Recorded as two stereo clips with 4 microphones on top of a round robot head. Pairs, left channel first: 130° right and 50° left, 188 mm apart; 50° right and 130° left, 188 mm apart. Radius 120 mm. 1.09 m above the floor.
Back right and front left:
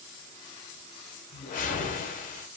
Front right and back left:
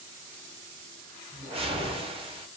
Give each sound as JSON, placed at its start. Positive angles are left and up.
{"t": 1.3, "sound": "a whoosh", "azimuth_deg": -170, "distance_m": 0.7}